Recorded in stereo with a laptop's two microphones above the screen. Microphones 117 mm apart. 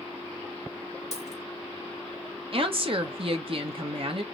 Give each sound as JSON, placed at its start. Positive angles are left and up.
{"t": 1.1, "sound": "a dropped coin", "side_deg": 70, "distance_m": 2.5}
{"t": 2.5, "sound": "a woman speaking", "side_deg": -50, "distance_m": 0.9}